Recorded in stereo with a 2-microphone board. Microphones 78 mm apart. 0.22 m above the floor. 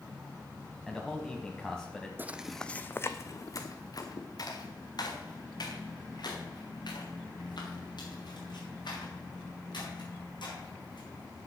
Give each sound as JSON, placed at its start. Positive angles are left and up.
{"t": 0.9, "sound": "a man speaking", "side_deg": 5, "distance_m": 1.1}
{"t": 2.2, "sound": "footsteps", "side_deg": -25, "distance_m": 0.5}